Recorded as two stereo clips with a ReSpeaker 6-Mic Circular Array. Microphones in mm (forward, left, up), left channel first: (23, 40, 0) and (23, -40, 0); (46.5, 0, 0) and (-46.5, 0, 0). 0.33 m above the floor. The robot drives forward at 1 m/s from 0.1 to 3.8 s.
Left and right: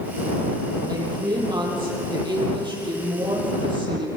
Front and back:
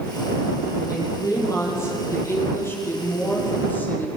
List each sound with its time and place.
0.9 s a woman speaking: 55° right, 9.5 m; by 4.1 s 70° right, 8 m